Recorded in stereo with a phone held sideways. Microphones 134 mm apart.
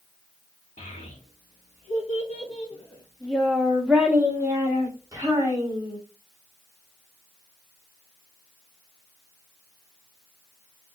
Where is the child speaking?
65° left (ahead or behind), 1.4 m; by 6.0 s 30° right (ahead or behind), 2.5 m.